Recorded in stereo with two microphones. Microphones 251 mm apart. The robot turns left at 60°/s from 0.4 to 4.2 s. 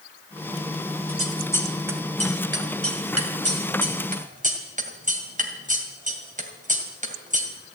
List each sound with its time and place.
1.1 s scissors: 35° left (ahead or behind), 2 m; by 7.5 s 30° right (ahead or behind), 2 m